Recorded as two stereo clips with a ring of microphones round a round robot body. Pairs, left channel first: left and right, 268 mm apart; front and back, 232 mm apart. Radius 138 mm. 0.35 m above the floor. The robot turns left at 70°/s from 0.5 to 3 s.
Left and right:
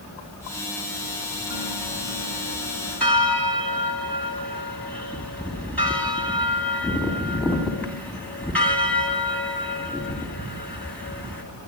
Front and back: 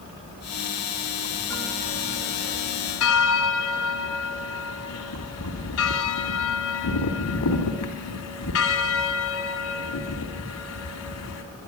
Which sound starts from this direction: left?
A bell, at 1.5 s.